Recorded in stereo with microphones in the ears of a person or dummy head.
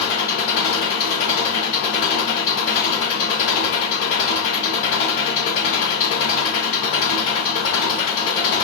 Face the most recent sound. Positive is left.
turn(degrees=70)  # may be behind; listen again after turning